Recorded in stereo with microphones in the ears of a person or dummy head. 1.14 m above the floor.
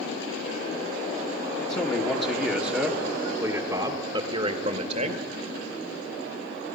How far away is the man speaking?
About 1.9 m.